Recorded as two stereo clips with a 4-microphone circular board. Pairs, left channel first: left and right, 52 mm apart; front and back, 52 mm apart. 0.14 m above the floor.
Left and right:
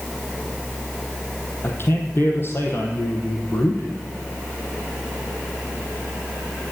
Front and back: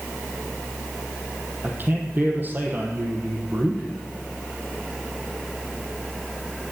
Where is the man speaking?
130° left, 4 m.